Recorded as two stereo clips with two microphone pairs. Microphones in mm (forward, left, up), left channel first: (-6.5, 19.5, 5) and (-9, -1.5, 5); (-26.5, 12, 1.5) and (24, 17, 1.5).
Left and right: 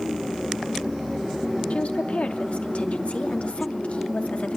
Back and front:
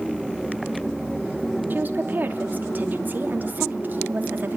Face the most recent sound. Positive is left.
turn(degrees=60)